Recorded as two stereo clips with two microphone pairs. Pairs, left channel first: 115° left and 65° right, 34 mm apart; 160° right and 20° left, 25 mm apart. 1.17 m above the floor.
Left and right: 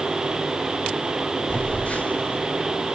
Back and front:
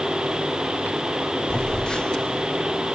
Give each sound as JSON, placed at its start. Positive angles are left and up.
{"t": 1.5, "sound": "a phone buzzing", "azimuth_deg": 150, "distance_m": 1.1}